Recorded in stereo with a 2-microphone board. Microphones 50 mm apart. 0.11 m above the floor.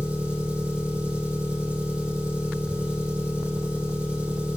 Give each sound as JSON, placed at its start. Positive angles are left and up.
{"t": 0.0, "sound": "an engine running", "side_deg": -30, "distance_m": 4.0}